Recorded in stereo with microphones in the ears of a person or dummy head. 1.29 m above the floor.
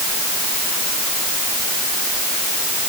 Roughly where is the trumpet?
I don't hear a trumpet.